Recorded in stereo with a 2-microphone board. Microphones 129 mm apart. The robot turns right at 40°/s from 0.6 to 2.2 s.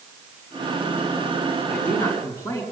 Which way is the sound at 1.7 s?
5° left (ahead or behind).